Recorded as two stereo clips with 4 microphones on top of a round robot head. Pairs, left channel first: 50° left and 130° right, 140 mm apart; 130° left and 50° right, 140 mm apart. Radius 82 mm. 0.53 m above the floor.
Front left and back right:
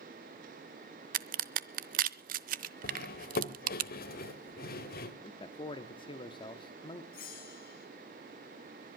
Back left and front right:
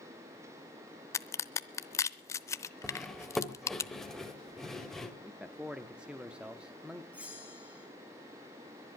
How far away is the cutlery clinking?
About 1.7 m.